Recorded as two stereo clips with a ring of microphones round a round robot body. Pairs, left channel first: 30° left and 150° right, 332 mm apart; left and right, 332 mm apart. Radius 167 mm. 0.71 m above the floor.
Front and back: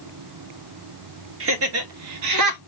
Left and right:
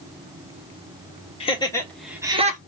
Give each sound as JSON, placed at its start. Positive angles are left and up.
{"t": 1.4, "sound": "laughter", "azimuth_deg": 160, "distance_m": 2.5}